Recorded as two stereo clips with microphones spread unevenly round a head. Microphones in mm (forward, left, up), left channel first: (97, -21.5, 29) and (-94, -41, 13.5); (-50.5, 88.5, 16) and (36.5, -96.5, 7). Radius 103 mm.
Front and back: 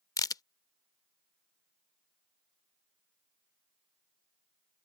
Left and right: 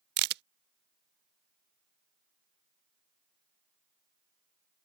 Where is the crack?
55° right.